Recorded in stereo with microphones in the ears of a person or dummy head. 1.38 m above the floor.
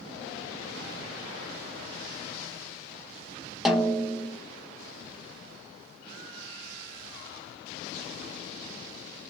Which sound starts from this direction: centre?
A snare drum, at 3.6 s.